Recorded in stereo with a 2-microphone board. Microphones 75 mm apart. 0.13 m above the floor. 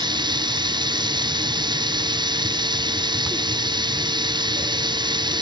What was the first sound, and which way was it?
Running water, 80° right.